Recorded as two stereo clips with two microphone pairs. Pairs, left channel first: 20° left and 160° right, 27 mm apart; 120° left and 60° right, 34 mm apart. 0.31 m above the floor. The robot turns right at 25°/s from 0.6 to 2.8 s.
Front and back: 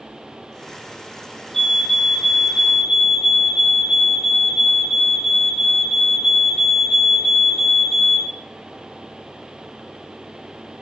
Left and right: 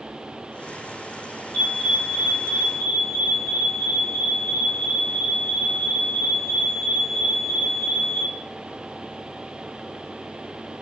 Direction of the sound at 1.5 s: 85° left.